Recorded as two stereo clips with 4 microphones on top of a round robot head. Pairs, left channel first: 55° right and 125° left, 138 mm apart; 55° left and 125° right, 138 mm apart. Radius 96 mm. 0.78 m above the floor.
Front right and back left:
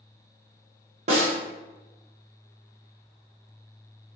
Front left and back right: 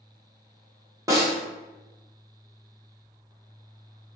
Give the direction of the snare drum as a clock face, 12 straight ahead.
6 o'clock.